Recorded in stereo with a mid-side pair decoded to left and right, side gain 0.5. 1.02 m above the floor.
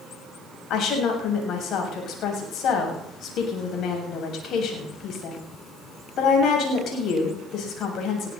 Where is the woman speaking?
65° left, 7.5 m.